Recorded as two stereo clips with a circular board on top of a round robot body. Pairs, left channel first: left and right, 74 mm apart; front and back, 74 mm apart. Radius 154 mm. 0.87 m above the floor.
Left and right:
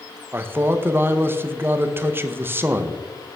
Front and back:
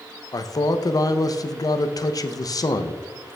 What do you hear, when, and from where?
0.3 s a man speaking: 30° right, 0.8 m